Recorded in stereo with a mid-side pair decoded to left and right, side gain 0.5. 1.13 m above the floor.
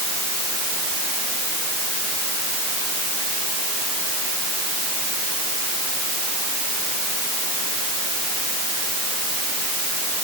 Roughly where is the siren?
I don't hear a siren.